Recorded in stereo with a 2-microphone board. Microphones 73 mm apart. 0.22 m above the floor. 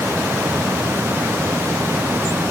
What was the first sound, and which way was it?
Only background noise.